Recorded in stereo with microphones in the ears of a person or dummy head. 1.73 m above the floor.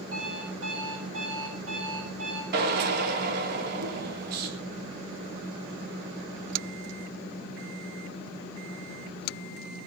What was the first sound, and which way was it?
An alarm clock, 80° right.